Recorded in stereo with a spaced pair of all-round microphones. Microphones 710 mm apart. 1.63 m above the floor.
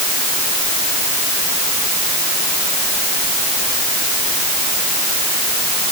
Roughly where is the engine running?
I don't hear an engine running.